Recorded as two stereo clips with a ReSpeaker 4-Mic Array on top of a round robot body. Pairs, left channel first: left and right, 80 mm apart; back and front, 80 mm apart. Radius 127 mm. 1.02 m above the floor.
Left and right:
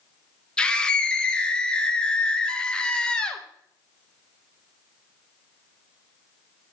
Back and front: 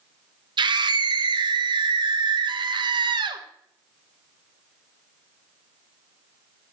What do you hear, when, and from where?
0.6 s a scream: 10° left, 0.9 m